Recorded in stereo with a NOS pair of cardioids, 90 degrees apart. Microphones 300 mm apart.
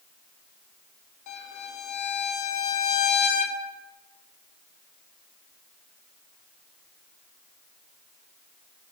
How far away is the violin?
About 0.6 m.